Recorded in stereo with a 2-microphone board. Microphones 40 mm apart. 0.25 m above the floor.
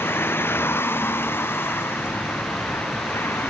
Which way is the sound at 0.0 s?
70° left (ahead or behind).